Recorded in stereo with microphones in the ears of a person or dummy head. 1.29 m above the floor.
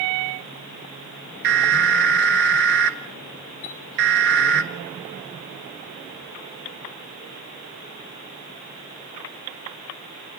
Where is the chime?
60° left (ahead or behind), 2.5 m.